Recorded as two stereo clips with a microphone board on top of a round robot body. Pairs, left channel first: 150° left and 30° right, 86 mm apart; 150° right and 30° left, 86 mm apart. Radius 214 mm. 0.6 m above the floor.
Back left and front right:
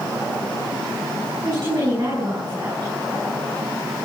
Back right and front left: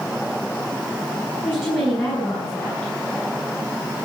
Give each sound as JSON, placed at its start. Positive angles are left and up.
{"t": 1.4, "sound": "a woman speaking", "azimuth_deg": -85, "distance_m": 8.0}